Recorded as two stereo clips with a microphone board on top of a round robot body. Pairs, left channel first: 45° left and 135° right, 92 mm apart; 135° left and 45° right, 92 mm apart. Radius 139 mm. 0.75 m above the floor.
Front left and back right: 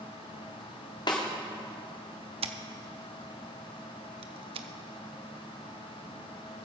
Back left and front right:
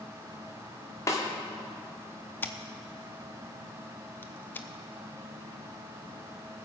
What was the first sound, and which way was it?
A snare drum, 80° left.